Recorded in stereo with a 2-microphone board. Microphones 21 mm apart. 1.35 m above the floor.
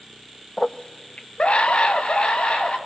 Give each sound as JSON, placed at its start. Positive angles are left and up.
{"t": 0.6, "sound": "a scream", "side_deg": 25, "distance_m": 0.5}